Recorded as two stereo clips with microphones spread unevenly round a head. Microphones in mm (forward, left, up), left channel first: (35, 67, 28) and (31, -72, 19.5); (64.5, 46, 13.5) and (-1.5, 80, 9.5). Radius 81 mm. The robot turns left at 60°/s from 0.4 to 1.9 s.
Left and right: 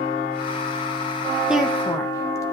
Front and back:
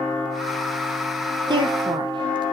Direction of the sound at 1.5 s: 175° right.